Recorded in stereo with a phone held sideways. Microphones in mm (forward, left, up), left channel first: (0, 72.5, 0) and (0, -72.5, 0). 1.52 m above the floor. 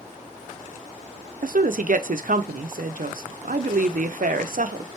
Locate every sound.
1.4 s a woman speaking: 70° right (ahead or behind), 0.5 m